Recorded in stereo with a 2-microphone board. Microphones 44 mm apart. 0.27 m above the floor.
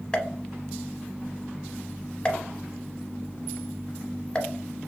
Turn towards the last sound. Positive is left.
turn(degrees=20)  # may be behind; listen again after turning